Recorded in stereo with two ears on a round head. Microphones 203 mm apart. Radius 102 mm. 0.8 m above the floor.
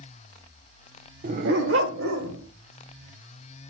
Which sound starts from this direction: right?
A dog barking, at 1.2 s.